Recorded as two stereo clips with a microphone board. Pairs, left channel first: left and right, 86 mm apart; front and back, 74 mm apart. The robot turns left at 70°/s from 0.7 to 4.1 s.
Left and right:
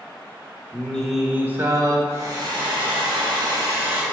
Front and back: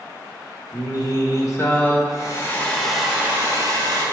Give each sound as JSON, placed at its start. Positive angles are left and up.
{"t": 0.7, "sound": "singing", "azimuth_deg": 25, "distance_m": 1.3}
{"t": 2.1, "sound": "a hair dryer", "azimuth_deg": -30, "distance_m": 2.0}